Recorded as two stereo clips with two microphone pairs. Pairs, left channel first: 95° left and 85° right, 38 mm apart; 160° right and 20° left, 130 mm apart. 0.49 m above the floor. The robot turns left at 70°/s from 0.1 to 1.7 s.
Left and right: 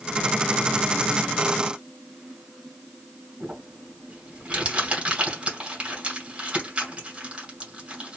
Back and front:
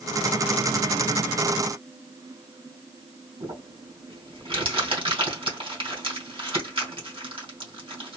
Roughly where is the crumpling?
Ahead right.